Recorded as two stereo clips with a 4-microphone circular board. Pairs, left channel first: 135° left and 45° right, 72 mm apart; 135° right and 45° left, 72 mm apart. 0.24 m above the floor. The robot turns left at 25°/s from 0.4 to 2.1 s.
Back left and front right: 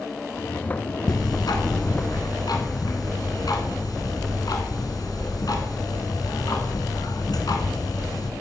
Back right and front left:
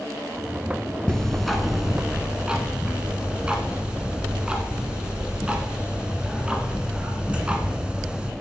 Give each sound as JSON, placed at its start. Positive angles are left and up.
{"t": 1.1, "sound": "ticking", "azimuth_deg": 145, "distance_m": 1.1}